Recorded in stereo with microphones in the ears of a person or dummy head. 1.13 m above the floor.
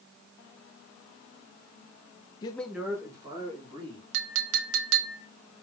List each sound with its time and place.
2.4 s a man speaking: 25° left (ahead or behind), 0.5 m; by 4.0 s 25° right (ahead or behind), 2.5 m
4.1 s a clink: 80° right, 0.7 m